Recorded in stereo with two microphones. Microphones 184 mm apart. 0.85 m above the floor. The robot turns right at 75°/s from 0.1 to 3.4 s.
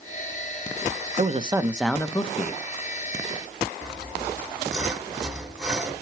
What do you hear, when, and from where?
1.2 s a man speaking: 50° right, 0.8 m; by 2.6 s 60° left, 0.8 m
3.8 s sawing: 5° right (ahead or behind), 1.0 m